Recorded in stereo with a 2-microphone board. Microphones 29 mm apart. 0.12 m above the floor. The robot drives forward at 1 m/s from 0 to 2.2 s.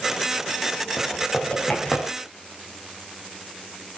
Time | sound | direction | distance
1.0 | typing on a keyboard | 30° left (ahead or behind) | 8 m